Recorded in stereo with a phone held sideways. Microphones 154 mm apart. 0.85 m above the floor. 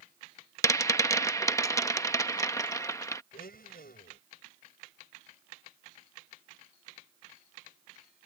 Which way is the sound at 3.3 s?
80° left.